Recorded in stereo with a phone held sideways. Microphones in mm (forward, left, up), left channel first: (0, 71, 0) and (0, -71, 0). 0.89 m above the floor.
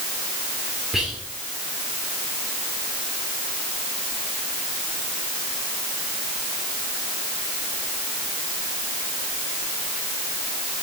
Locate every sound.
0.9 s whispering: 5° right (ahead or behind), 2.5 m